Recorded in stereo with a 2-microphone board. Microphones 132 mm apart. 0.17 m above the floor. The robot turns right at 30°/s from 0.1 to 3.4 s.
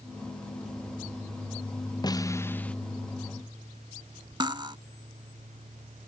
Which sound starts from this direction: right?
Cutlery clinking, at 4.4 s.